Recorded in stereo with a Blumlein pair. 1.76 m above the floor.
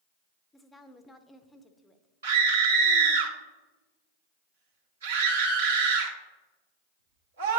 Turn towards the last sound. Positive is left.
turn(degrees=-65)